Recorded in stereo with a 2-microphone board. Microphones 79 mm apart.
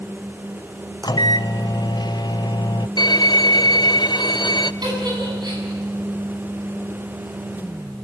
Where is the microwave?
65° left (ahead or behind), 0.6 m.